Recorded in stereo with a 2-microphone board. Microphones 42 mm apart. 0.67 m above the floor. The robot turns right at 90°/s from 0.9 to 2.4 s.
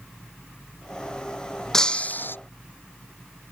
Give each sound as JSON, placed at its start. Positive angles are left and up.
{"t": 1.7, "sound": "breaking glass", "azimuth_deg": 15}